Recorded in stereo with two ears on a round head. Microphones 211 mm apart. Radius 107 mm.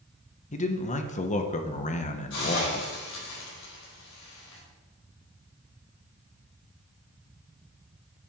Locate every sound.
0.5 s a man speaking: 30° left (ahead or behind), 1.0 m
2.3 s a hiss: 55° left (ahead or behind), 4.5 m